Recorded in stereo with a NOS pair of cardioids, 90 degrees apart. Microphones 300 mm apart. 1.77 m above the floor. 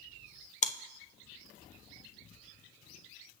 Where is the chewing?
25° left, 0.5 m.